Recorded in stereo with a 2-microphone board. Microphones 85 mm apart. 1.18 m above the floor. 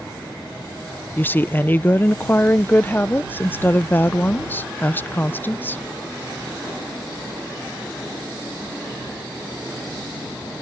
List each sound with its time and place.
1.2 s a woman speaking: 25° left (ahead or behind)